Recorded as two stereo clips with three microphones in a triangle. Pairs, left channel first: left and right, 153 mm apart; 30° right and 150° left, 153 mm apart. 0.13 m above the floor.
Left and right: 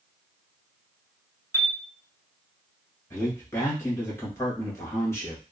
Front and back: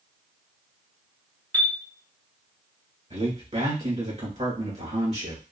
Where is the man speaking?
155° left, 1.9 m.